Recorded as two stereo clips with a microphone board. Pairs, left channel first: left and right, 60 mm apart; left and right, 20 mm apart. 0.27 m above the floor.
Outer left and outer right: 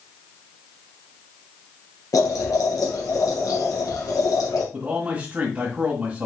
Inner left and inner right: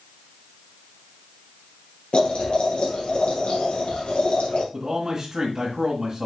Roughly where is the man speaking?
Right.